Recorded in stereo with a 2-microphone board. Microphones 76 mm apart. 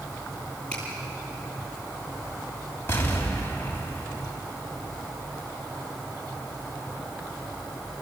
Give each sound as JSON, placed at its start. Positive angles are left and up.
{"t": 0.7, "sound": "a finger snap", "side_deg": 15, "distance_m": 9.5}
{"t": 2.9, "sound": "an explosion", "side_deg": 30, "distance_m": 3.0}